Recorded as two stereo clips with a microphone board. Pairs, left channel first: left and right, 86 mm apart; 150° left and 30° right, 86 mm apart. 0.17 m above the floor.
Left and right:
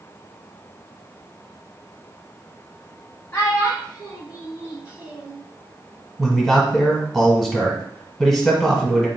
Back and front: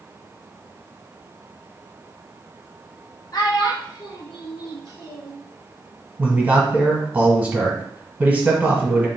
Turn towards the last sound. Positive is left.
turn(degrees=0)